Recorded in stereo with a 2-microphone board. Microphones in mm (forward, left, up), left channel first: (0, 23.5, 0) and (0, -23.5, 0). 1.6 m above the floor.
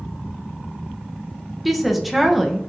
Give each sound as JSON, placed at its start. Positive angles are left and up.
{"t": 1.6, "sound": "a woman speaking", "side_deg": -5, "distance_m": 0.7}